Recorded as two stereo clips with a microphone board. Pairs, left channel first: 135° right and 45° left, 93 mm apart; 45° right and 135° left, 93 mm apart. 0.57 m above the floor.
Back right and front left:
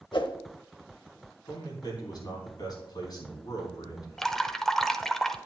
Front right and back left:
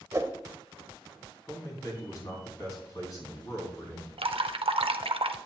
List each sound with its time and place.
0.1 s a whoosh: 170° right, 0.7 m
1.5 s a man speaking: 95° right, 3.5 m
4.2 s dripping: 140° left, 0.6 m